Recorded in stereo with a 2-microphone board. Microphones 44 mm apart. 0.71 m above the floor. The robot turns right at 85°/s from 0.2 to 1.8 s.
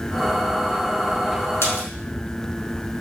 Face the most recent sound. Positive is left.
turn(degrees=90)